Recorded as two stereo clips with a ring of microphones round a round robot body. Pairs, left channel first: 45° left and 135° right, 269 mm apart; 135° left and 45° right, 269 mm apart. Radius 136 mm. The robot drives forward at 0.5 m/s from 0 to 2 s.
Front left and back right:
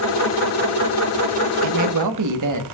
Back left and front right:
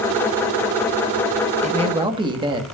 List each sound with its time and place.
1.6 s a man speaking: 110° right, 1.2 m; by 2.6 s 120° right, 1.3 m